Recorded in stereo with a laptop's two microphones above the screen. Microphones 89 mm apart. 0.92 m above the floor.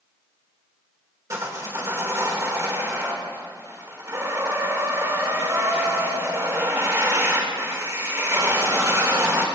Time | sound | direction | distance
1.3 | sawing | 35° right (ahead or behind) | 2.5 m